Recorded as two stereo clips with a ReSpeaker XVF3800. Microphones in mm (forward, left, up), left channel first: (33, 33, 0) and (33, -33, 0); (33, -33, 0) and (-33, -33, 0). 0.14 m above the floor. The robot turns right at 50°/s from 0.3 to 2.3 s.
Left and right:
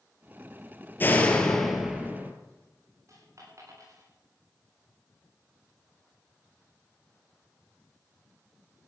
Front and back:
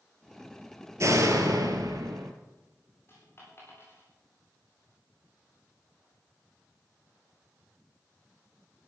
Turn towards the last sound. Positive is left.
turn(degrees=-50)